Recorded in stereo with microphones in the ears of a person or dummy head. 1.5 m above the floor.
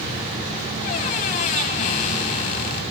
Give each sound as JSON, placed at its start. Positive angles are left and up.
{"t": 0.8, "sound": "a squeak", "side_deg": 35, "distance_m": 1.6}